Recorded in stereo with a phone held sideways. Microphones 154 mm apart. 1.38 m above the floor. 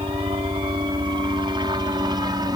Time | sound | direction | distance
0.0 | a helicopter | 35° right (ahead or behind) | ?